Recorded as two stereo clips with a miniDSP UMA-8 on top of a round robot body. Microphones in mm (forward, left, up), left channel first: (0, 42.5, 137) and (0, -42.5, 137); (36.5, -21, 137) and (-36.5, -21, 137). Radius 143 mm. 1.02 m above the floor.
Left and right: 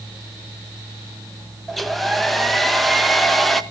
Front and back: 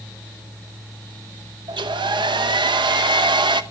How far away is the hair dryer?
About 0.8 m.